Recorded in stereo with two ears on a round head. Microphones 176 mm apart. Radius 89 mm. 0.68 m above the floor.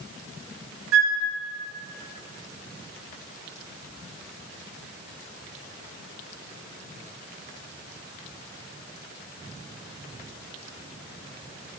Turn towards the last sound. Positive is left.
turn(degrees=-75)  # may be behind; listen again after turning